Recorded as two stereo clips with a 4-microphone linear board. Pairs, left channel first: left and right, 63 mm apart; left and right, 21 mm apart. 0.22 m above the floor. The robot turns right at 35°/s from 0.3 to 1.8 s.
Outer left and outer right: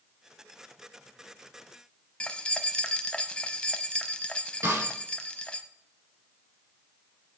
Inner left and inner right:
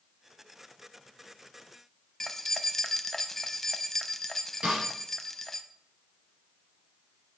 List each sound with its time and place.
2.2 s keys jangling: 15° left (ahead or behind), 0.7 m
4.6 s a snare drum: 50° right (ahead or behind), 5 m